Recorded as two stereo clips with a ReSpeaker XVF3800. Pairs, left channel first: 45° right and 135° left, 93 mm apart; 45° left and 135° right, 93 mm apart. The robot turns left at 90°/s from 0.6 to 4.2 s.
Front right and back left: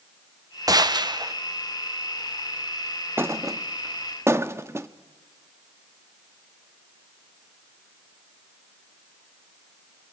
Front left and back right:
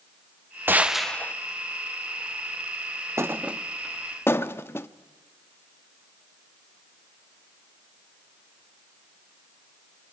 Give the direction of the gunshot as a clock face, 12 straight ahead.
7 o'clock.